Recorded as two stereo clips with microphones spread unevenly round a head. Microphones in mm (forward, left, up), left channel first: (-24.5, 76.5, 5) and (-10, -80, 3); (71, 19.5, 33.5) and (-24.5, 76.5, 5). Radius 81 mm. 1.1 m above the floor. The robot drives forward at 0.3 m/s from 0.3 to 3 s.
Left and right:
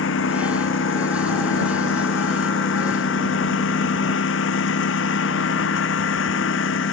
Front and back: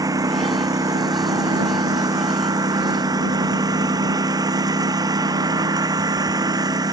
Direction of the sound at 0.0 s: 90° left.